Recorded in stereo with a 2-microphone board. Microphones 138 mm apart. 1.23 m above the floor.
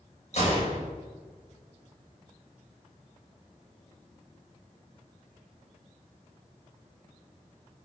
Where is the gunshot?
55° left (ahead or behind), 5.5 m.